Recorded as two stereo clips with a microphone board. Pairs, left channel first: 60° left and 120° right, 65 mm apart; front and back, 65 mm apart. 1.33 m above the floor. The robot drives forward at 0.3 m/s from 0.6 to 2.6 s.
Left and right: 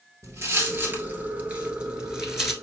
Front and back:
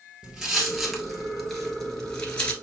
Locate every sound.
0.2 s footsteps: 105° right, 1.7 m; by 2.5 s 35° right, 1.3 m